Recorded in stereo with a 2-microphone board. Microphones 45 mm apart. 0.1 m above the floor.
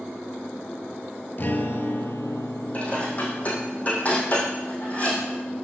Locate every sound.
1.4 s a guitar: 45° left (ahead or behind), 0.6 m
2.7 s dishes clattering: 30° left (ahead or behind), 3 m